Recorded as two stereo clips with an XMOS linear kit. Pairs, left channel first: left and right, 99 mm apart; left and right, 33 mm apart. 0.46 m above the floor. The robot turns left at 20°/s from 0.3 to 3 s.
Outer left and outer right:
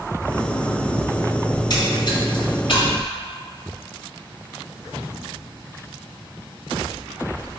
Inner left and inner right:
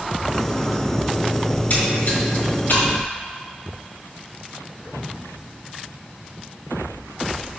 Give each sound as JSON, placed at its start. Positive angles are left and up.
{"t": 1.5, "sound": "a splash", "side_deg": 45, "distance_m": 1.7}